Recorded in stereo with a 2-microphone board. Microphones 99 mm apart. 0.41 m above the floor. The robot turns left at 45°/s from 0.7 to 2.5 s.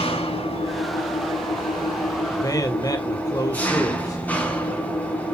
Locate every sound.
0.0 s an engine running: 95° left, 3 m; by 5.3 s 15° left, 3 m
2.3 s a man speaking: 35° left (ahead or behind), 1.7 m